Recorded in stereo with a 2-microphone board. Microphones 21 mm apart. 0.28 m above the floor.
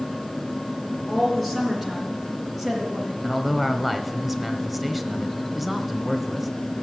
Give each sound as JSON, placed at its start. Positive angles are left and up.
{"t": 1.1, "sound": "a woman speaking", "side_deg": 5, "distance_m": 4.0}
{"t": 3.2, "sound": "a man speaking", "side_deg": -5, "distance_m": 1.1}